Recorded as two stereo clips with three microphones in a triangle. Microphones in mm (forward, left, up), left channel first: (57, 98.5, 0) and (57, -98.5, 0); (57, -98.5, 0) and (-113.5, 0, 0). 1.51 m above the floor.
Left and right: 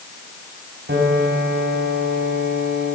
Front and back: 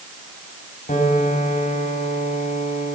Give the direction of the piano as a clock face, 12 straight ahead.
2 o'clock.